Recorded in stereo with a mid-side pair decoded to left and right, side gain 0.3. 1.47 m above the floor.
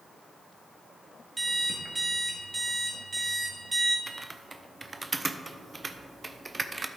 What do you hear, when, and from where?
1.4 s an alarm clock: 45° right, 1.7 m
4.1 s typing on a keyboard: 35° right, 0.6 m